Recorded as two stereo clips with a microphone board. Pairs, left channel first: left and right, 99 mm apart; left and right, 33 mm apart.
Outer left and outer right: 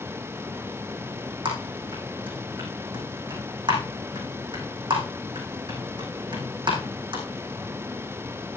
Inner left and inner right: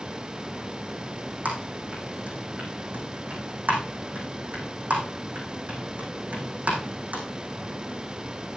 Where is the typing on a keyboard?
60° right (ahead or behind), 5 m.